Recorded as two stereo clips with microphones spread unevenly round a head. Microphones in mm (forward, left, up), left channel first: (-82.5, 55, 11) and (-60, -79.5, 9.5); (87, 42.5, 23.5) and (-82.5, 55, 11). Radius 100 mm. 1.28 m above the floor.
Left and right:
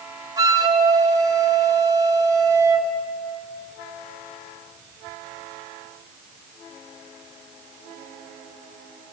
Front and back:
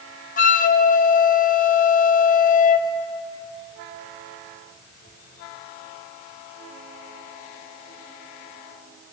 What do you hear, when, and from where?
0.4 s a flute: 15° right, 0.7 m